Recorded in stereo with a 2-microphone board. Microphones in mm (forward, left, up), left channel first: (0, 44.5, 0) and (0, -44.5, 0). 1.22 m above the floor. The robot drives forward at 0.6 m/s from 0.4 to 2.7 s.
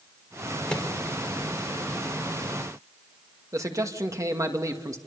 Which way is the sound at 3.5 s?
40° right (ahead or behind).